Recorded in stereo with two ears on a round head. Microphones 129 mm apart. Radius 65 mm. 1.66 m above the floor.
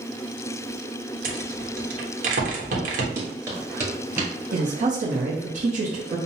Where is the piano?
No piano in this recording.